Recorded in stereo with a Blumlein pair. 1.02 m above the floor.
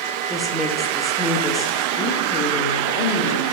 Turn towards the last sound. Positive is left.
turn(degrees=50)